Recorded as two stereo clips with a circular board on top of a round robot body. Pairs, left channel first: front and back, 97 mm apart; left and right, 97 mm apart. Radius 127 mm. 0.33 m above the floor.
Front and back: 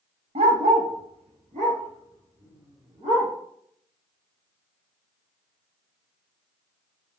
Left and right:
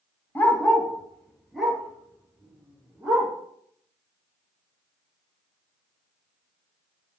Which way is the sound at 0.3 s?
165° left.